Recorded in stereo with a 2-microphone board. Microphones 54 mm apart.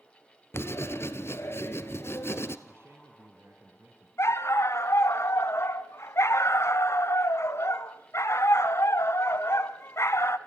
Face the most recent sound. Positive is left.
turn(degrees=65)  # may be behind; listen again after turning